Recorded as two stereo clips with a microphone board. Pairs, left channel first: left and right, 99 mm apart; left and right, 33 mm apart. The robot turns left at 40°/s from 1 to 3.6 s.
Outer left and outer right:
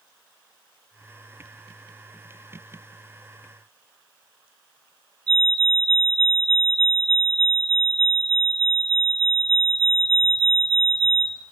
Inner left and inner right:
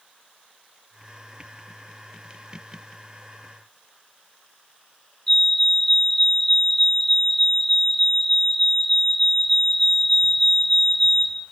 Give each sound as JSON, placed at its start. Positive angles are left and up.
{"t": 5.3, "sound": "a fire alarm", "side_deg": 10, "distance_m": 6.5}